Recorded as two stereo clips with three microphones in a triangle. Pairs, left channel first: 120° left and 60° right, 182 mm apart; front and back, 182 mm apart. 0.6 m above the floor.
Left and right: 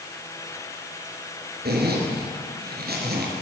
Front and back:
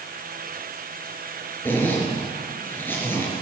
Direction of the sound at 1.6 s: 80° right.